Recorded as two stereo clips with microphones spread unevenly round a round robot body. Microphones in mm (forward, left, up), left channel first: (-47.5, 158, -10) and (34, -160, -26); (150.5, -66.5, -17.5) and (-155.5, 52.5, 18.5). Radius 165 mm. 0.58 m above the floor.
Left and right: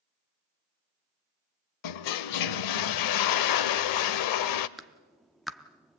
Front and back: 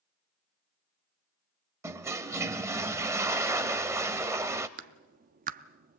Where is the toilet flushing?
80° left, 0.6 m.